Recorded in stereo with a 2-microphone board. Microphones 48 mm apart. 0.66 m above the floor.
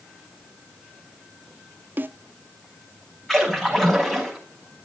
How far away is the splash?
About 5 m.